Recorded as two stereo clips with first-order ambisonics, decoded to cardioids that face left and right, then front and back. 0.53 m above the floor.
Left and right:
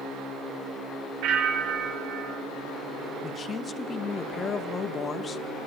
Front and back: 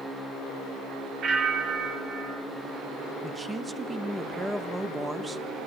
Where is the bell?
120° right, 2.5 m.